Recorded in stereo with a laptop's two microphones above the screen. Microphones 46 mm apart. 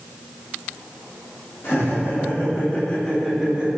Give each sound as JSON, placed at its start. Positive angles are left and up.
{"t": 1.6, "sound": "laughter", "side_deg": 50, "distance_m": 1.3}